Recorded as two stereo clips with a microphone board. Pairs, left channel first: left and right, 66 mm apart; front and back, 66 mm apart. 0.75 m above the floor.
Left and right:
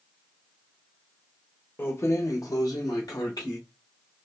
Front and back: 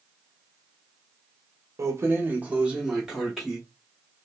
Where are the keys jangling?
145° left, 0.5 m; by 3.6 s 90° left, 1.2 m.